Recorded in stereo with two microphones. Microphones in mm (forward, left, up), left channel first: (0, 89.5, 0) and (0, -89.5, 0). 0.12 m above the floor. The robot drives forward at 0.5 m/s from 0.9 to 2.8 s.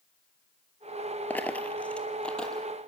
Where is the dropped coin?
10° left (ahead or behind), 0.7 m; by 2.7 s 5° left (ahead or behind), 1.3 m.